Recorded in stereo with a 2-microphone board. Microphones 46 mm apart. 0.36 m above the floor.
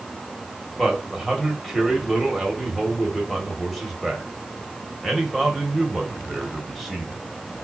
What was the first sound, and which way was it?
A man speaking, centre (ahead or behind).